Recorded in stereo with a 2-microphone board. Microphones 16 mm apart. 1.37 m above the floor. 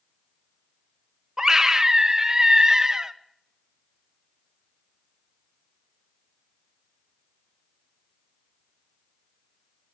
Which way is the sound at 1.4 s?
30° right (ahead or behind).